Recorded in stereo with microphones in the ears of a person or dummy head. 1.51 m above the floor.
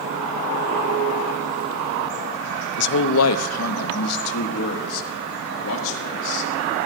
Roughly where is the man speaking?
Left.